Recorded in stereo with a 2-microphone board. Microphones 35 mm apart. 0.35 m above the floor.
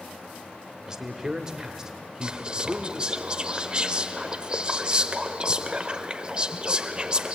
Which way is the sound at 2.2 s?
30° right (ahead or behind).